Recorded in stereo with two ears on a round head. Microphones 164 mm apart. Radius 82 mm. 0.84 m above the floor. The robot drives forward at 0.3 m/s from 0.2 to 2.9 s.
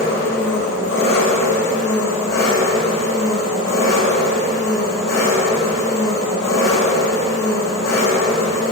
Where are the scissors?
I don't hear scissors.